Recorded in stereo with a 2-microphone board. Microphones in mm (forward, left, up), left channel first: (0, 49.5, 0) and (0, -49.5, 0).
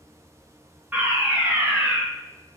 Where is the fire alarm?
15° right (ahead or behind), 2 m.